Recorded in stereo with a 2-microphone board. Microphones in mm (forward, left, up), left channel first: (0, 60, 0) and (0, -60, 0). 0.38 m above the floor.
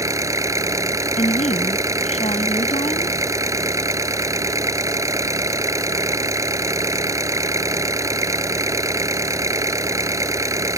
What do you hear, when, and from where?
0.0 s an engine running: 25° right (ahead or behind)
1.2 s a woman speaking: 70° left (ahead or behind)